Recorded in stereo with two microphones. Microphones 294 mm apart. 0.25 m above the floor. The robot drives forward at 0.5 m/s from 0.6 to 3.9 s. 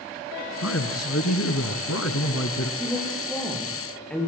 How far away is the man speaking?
About 2 m.